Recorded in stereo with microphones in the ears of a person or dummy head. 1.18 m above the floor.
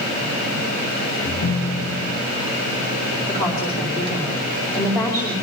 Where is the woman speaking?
25° left (ahead or behind), 4.5 m.